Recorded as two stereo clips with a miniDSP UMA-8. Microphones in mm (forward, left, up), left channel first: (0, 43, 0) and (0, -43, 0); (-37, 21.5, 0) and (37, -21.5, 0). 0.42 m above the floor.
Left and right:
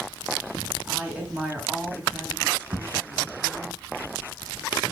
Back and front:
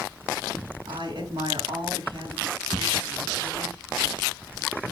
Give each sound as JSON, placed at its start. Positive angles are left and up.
{"t": 0.8, "sound": "a woman speaking", "azimuth_deg": -15, "distance_m": 5.0}
{"t": 2.7, "sound": "an explosion", "azimuth_deg": -110, "distance_m": 3.5}